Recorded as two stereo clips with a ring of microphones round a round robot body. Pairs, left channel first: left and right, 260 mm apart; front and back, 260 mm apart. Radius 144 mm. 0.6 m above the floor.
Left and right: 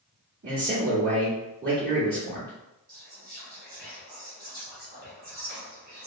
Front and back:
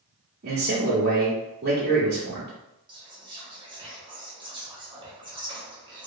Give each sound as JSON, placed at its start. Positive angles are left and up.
{"t": 0.4, "sound": "a man speaking", "azimuth_deg": -140, "distance_m": 0.9}
{"t": 2.9, "sound": "whispering", "azimuth_deg": -120, "distance_m": 1.4}